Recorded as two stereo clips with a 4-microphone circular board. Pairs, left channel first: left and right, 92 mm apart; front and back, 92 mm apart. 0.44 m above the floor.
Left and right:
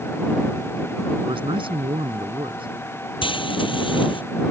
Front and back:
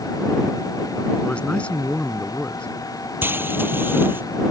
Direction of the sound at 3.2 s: 115° left.